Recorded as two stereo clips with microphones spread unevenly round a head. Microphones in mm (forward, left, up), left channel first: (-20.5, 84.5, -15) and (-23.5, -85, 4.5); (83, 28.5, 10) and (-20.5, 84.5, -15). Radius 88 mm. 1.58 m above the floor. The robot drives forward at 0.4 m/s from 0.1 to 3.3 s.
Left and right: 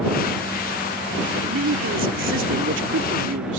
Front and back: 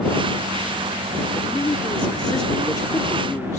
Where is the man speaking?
95° right; by 3.6 s 105° right.